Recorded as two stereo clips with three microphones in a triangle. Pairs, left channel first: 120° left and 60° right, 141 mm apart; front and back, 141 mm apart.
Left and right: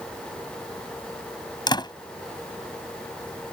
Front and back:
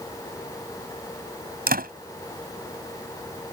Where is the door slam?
Straight behind.